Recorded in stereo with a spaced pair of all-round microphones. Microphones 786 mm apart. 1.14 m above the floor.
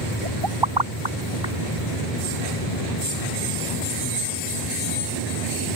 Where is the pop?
30° right (ahead or behind).